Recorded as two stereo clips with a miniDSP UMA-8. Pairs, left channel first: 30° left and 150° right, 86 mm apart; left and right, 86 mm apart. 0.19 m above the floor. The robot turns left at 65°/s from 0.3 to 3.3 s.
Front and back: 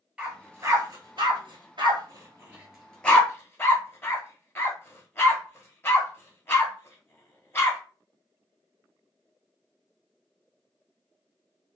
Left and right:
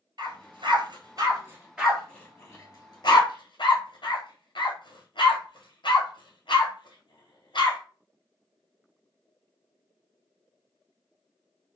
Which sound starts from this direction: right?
A dog barking, at 0.2 s.